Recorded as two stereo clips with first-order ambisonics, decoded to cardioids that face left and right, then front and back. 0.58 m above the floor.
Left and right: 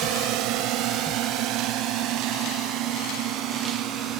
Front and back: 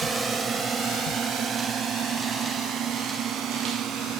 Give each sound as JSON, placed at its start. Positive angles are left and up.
{"t": 0.0, "sound": "a drone", "azimuth_deg": -105}